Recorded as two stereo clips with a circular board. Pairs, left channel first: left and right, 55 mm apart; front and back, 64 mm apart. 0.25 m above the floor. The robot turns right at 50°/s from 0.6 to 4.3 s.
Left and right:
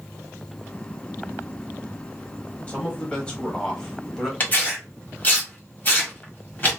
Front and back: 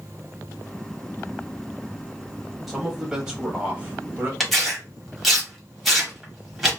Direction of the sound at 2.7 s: 95° left.